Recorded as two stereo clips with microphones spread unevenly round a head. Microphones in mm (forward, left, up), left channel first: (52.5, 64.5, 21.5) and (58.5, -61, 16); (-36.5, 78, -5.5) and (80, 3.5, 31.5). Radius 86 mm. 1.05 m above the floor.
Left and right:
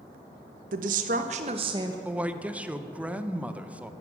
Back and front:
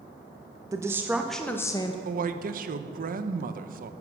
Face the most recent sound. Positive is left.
turn(degrees=-10)